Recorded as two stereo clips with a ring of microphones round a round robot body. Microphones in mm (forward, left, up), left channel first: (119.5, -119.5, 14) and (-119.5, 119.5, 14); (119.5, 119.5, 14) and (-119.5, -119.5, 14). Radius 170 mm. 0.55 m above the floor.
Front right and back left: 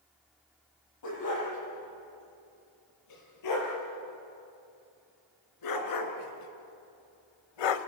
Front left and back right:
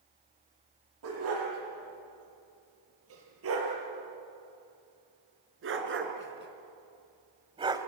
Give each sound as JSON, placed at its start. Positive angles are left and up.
{"t": 1.0, "sound": "a dog barking", "azimuth_deg": -85, "distance_m": 7.0}